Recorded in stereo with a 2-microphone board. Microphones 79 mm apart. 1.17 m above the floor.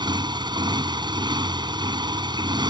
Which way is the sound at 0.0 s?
80° right.